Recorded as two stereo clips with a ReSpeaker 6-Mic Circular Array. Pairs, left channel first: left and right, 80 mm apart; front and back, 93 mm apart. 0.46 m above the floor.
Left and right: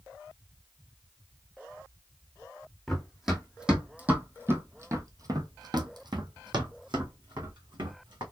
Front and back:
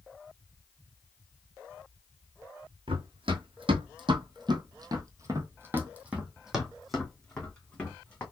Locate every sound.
2.9 s running footsteps: straight behind, 1.7 m; by 8.2 s 75° right, 2.5 m